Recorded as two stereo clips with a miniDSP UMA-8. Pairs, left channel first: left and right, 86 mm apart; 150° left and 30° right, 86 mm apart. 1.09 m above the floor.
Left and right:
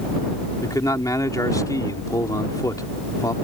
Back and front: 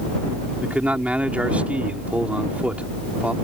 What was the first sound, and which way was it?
A man speaking, 45° left.